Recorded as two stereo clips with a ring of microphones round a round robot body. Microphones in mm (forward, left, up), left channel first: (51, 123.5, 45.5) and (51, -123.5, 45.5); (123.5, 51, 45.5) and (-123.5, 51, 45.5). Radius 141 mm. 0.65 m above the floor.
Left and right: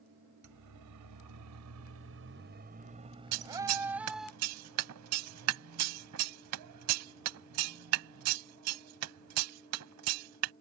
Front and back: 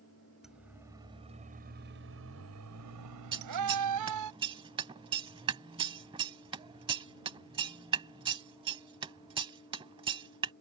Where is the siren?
90° right; by 4.3 s straight behind.